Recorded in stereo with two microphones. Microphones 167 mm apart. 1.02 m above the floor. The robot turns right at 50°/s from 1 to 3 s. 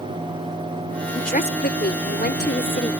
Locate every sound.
1.1 s a woman speaking: 50° left; by 2.9 s 135° left